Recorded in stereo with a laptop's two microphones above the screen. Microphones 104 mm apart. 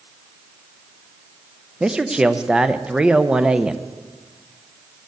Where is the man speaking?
10° right (ahead or behind), 0.5 m.